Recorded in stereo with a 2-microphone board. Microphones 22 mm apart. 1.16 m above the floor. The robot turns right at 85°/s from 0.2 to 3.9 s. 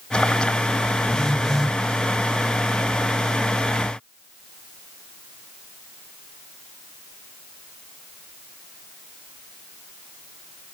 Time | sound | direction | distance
1.1 | a phone buzzing | 140° left | 1.2 m